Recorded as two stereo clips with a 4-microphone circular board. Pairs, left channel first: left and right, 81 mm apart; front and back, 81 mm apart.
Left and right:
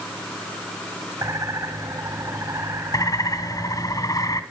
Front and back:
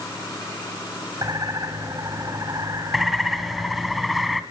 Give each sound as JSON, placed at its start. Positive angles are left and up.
{"t": 1.2, "sound": "a bird", "azimuth_deg": -140, "distance_m": 6.0}
{"t": 2.9, "sound": "a bird", "azimuth_deg": 90, "distance_m": 2.0}